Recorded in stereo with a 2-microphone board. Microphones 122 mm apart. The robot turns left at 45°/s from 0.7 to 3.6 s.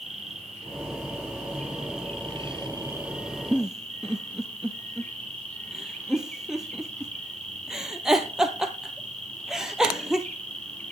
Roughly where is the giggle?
Centre.